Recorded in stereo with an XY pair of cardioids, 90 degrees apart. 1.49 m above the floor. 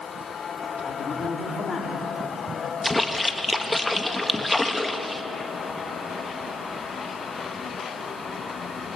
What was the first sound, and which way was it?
A man speaking, 35° left.